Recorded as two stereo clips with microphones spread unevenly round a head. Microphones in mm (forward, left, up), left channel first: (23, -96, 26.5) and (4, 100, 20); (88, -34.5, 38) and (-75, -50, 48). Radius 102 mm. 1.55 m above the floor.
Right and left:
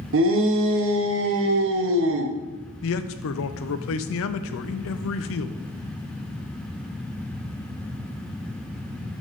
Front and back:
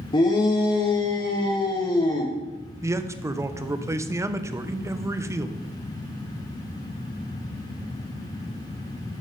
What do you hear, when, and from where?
0.1 s a shout: 70° left, 1.1 m
2.8 s a man speaking: 100° right, 0.6 m